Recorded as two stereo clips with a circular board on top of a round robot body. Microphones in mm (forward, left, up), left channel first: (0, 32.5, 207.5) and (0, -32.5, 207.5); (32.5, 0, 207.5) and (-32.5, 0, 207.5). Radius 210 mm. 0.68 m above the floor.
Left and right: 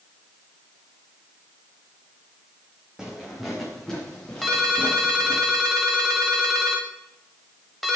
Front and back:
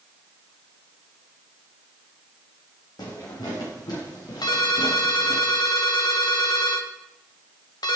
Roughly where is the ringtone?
Ahead.